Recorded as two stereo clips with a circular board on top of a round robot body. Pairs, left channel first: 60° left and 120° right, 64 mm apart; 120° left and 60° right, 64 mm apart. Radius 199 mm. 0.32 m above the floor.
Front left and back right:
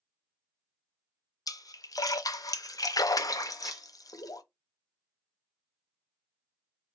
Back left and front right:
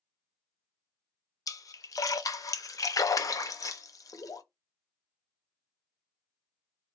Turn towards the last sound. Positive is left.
turn(degrees=155)